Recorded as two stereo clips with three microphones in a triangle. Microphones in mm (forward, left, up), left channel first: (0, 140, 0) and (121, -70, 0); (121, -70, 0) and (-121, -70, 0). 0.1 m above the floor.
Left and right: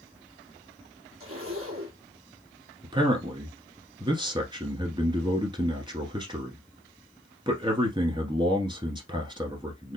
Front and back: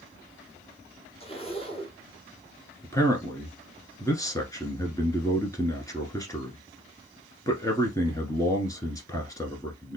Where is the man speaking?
45° right, 1.3 m.